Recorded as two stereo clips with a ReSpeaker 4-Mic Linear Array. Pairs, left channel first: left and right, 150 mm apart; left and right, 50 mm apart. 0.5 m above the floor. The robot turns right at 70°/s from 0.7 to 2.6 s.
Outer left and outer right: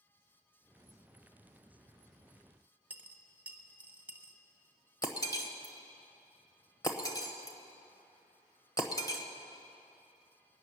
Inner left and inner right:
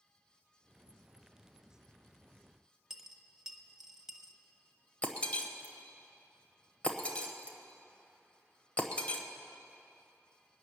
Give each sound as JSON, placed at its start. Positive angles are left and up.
{"t": 2.9, "sound": "a dropped coin", "side_deg": -10, "distance_m": 0.9}
{"t": 5.0, "sound": "breaking glass", "side_deg": 25, "distance_m": 1.2}